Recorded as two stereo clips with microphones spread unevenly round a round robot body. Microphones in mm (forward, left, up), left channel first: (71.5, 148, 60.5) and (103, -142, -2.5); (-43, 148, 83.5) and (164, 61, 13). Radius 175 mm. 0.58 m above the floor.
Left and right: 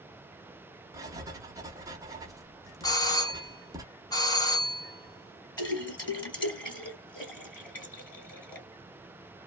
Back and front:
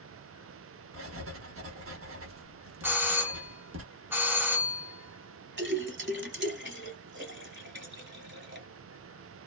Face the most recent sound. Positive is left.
turn(degrees=20)